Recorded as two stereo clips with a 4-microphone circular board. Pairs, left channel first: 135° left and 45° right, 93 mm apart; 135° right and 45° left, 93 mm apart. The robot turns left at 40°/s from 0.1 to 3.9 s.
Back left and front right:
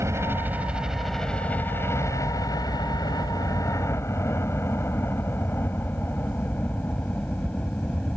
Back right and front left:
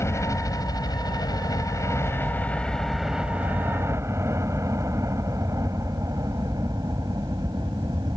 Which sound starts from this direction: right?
A helicopter, at 0.0 s.